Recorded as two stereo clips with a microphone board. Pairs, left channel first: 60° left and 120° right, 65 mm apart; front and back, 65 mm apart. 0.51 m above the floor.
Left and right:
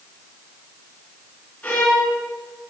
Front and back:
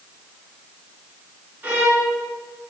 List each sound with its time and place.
1.6 s a violin: 125° left, 3 m